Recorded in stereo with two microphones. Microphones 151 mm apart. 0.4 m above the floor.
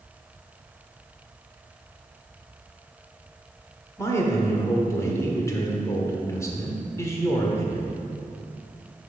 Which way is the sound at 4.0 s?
20° left (ahead or behind).